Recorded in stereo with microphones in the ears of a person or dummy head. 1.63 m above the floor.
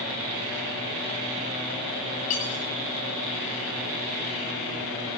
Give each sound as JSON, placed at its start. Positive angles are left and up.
{"t": 2.3, "sound": "cutlery clinking", "side_deg": 40, "distance_m": 2.5}